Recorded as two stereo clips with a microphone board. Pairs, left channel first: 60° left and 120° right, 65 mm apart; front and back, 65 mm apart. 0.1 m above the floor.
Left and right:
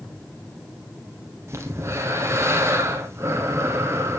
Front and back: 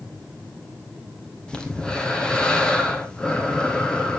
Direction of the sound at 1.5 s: 75° right.